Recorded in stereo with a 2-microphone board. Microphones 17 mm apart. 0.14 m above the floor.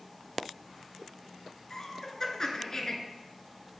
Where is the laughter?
35° left (ahead or behind), 1.5 m.